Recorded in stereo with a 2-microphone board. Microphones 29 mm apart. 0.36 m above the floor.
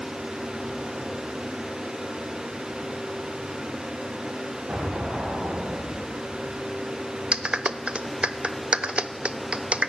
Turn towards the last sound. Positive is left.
turn(degrees=-40)  # may be behind; listen again after turning